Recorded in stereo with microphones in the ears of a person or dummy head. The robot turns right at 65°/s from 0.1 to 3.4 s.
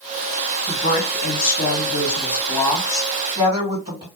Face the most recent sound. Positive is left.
turn(degrees=-155)